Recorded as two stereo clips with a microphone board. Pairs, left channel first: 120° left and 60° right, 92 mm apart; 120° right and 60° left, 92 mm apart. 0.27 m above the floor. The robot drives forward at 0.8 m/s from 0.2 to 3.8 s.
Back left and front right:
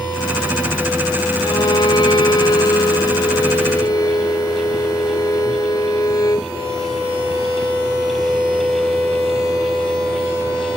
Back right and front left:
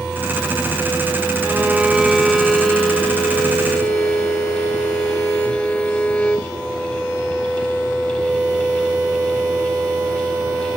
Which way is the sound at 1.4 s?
115° left.